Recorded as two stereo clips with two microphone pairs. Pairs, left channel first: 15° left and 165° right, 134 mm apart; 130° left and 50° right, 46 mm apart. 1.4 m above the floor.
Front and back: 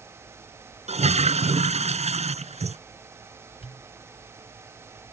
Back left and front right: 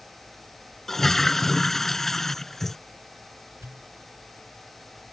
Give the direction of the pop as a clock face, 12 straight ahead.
1 o'clock.